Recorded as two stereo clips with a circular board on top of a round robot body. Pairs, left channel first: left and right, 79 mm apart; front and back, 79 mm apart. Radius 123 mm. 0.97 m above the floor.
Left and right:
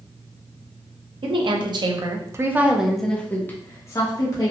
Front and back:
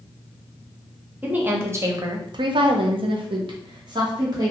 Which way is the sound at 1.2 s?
105° right.